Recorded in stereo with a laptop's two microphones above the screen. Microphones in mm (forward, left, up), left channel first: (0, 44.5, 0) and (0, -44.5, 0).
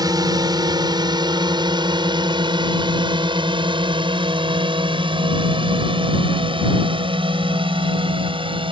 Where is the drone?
50° right (ahead or behind); by 8.7 s 80° right.